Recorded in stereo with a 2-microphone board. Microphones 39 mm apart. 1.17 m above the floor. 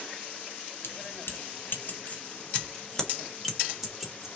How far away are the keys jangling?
About 1.1 m.